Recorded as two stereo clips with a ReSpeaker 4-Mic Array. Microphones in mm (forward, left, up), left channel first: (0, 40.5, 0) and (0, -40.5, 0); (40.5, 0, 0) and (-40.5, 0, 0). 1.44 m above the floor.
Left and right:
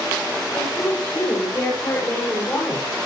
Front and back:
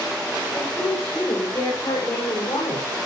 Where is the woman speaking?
45° left, 7 m; by 3.1 s 25° left, 5.5 m.